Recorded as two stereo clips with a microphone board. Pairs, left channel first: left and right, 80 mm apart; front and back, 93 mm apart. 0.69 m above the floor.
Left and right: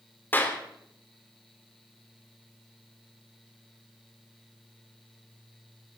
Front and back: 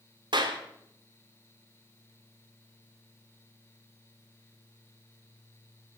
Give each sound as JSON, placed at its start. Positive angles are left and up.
{"t": 0.3, "sound": "a clap", "azimuth_deg": 155, "distance_m": 1.9}